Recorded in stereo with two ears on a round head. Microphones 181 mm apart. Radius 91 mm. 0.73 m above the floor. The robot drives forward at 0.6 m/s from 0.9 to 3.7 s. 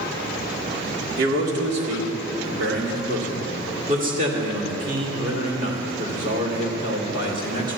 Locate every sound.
1.2 s a man speaking: 65° right (ahead or behind), 2 m; by 7.8 s 45° right (ahead or behind), 2.5 m